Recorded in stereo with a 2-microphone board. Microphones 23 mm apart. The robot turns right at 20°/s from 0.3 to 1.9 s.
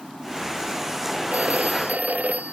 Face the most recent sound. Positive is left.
turn(degrees=-85)